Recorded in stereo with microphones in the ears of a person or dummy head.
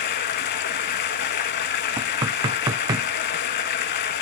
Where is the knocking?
25° right (ahead or behind), 0.7 m.